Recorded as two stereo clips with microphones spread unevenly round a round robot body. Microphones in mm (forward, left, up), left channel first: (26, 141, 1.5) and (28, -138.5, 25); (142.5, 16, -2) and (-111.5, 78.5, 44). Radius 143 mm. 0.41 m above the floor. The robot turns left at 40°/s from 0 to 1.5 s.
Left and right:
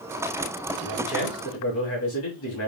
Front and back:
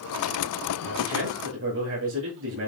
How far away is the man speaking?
About 3 m.